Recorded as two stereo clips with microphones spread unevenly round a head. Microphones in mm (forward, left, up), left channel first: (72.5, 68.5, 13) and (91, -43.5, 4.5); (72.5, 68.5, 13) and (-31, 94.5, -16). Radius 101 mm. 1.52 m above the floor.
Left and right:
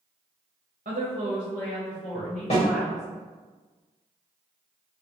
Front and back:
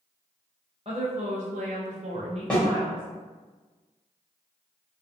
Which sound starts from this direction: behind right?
A woman speaking, at 0.8 s.